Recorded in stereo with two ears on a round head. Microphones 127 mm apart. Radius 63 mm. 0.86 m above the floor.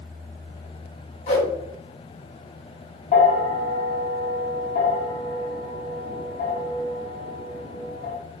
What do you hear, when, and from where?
1.3 s a whoosh: 50° left (ahead or behind), 1.4 m
3.1 s a bell: 60° left (ahead or behind), 1.3 m